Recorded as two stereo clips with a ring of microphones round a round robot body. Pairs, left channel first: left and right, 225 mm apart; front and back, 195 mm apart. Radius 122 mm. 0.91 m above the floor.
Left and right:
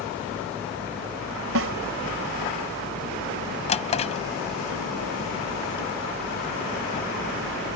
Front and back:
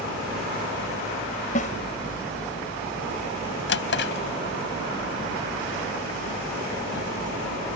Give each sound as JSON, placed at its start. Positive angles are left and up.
{"t": 1.6, "sound": "a snare drum", "azimuth_deg": -60}
{"t": 3.7, "sound": "a drawer", "azimuth_deg": 25}